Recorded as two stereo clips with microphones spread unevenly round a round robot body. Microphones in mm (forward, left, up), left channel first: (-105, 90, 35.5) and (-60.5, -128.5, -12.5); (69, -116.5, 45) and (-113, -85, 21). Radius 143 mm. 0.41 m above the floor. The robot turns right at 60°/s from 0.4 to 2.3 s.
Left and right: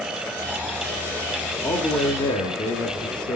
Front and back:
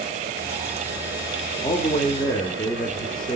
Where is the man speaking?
10° right, 0.8 m; by 3.4 s 30° left, 0.8 m.